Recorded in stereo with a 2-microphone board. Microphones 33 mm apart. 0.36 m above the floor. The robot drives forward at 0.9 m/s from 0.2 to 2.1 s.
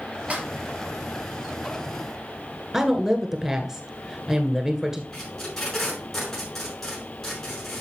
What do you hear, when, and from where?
0.3 s a snare drum: 40° right (ahead or behind), 3 m; by 0.5 s 35° right (ahead or behind), 3.5 m
2.7 s a woman speaking: 15° right (ahead or behind), 1.6 m
5.1 s tape being pulled: 15° left (ahead or behind), 6 m